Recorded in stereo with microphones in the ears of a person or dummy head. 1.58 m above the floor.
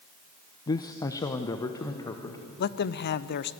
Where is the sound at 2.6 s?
50° left (ahead or behind), 0.5 m.